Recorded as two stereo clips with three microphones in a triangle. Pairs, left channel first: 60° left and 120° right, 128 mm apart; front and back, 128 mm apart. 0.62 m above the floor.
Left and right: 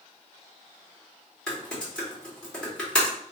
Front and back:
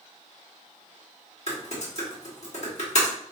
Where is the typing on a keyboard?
25° right, 1.8 m.